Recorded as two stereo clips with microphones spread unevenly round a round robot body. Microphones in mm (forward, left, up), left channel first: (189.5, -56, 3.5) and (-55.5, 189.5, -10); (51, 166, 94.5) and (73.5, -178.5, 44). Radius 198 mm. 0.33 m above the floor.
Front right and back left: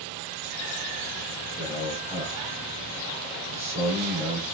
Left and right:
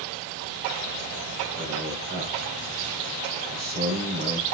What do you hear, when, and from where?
1.6 s a man speaking: 150° right, 5 m